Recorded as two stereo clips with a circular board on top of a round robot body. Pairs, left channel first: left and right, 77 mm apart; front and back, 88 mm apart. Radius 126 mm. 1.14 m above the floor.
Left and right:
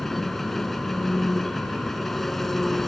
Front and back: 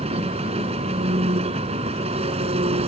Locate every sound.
0.0 s an engine running: 175° left